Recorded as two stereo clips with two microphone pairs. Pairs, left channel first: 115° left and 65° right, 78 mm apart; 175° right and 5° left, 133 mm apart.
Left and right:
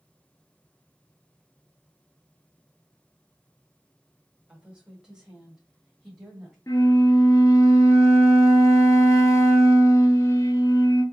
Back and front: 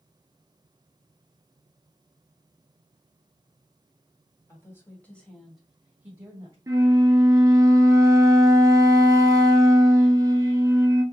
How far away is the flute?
About 0.7 m.